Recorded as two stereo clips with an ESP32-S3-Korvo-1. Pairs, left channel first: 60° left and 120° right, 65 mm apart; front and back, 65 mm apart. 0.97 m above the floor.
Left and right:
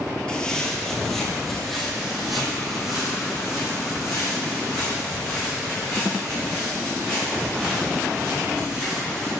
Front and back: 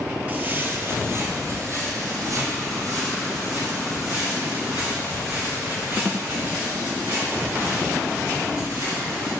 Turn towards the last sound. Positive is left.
turn(degrees=160)